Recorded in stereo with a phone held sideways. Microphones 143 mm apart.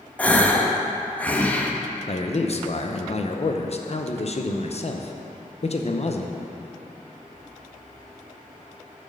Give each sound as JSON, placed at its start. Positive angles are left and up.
{"t": 0.2, "sound": "a gasp", "side_deg": 10, "distance_m": 0.6}
{"t": 2.1, "sound": "a man speaking", "side_deg": 50, "distance_m": 0.6}